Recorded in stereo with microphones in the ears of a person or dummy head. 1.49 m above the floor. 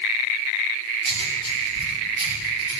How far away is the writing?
About 7 m.